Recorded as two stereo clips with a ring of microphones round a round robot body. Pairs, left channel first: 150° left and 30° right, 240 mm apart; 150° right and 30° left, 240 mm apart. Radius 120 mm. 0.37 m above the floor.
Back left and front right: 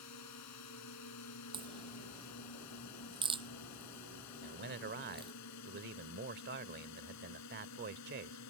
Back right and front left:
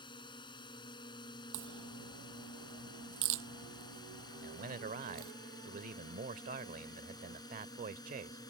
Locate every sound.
0.0 s a drone: 140° left; by 8.5 s 135° left
1.5 s a crack: 40° left
4.4 s a man speaking: 10° right